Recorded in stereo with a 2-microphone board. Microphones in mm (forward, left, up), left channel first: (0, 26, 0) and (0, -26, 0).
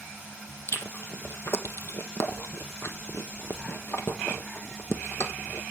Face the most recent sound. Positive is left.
turn(degrees=65)  # may be behind; listen again after turning